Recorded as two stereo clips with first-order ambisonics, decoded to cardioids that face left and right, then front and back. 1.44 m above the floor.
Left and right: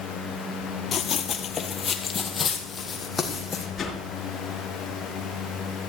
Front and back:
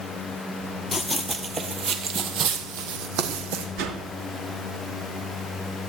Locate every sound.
0.9 s running footsteps: 75° left, 1.5 m; by 3.7 s 170° left, 3 m
3.8 s a whoosh: 160° left, 3.5 m